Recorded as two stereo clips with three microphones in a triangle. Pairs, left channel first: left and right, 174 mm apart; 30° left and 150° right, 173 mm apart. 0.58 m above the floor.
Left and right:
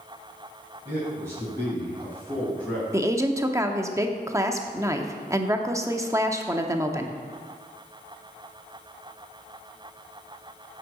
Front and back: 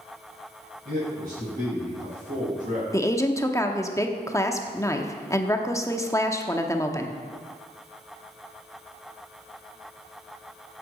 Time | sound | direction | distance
0.8 | a man speaking | 160° right | 4 m
2.9 | a woman speaking | 30° right | 0.8 m